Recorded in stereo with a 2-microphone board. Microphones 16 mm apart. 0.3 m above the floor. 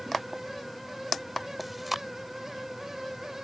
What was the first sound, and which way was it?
Chewing, 5° right (ahead or behind).